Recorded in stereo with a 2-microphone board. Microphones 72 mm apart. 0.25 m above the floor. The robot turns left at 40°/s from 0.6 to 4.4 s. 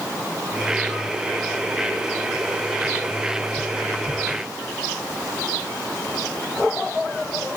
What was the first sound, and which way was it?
Only background noise.